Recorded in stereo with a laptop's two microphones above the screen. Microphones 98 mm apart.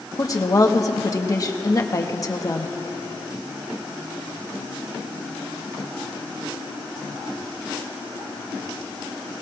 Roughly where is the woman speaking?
Left.